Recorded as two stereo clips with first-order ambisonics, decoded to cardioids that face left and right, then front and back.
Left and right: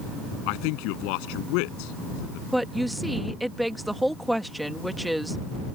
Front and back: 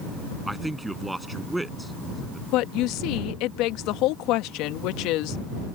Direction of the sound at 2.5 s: Straight ahead.